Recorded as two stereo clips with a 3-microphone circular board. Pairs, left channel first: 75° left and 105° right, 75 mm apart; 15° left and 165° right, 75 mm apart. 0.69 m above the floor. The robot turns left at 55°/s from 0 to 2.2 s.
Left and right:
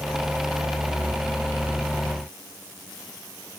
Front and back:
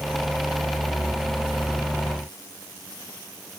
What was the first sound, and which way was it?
Only background noise.